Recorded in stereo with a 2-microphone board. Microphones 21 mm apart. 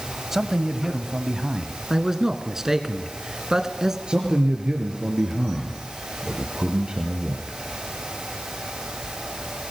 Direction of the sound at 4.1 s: 50° right (ahead or behind).